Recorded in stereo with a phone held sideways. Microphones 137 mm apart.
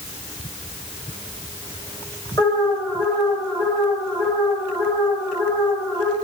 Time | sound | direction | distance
2.4 | an alarm | 20° left (ahead or behind) | 6.5 m